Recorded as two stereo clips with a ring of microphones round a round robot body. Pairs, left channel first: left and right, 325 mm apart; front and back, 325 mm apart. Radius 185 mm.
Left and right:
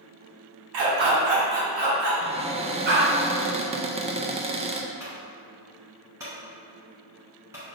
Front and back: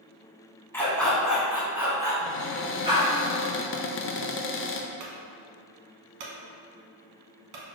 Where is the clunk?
170° right, 0.9 m.